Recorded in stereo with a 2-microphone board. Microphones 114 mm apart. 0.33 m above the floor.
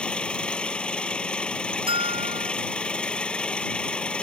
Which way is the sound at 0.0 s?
10° left (ahead or behind).